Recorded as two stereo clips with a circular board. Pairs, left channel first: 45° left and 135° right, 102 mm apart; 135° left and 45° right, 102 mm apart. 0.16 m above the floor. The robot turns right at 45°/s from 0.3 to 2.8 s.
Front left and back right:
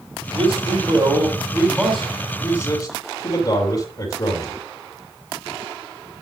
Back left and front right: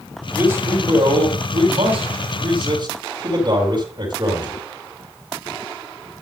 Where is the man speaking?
115° right, 4.5 m; by 4.6 s 5° right, 4.5 m.